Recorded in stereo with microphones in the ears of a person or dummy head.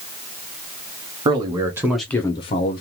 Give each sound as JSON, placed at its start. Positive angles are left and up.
{"t": 1.2, "sound": "a man speaking", "side_deg": -25, "distance_m": 1.1}